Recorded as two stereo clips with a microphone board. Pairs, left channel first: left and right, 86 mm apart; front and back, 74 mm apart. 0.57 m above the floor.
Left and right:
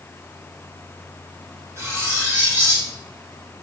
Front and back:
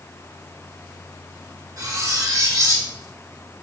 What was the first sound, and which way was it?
Cutlery clinking, 145° right.